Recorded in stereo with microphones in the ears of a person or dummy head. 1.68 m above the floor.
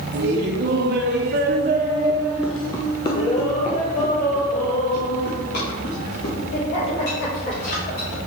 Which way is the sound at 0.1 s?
60° right (ahead or behind).